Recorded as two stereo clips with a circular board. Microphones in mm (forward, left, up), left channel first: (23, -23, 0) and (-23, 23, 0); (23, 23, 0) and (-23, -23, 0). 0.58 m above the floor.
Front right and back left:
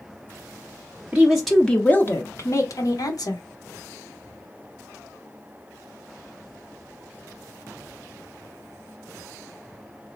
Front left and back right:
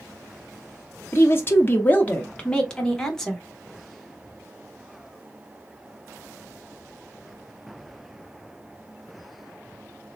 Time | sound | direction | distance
1.1 | a woman speaking | 75° left | 0.7 m